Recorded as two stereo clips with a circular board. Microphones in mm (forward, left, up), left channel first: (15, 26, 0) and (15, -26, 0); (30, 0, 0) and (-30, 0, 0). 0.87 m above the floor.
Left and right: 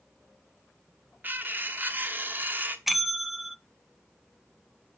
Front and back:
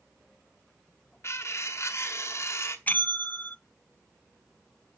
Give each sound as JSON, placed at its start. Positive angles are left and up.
{"t": 1.2, "sound": "cutlery clinking", "azimuth_deg": -40, "distance_m": 0.9}
{"t": 2.9, "sound": "a bell", "azimuth_deg": -10, "distance_m": 0.5}